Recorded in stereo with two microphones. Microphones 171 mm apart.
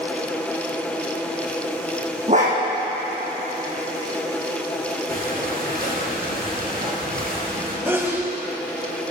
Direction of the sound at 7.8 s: 15° right (ahead or behind).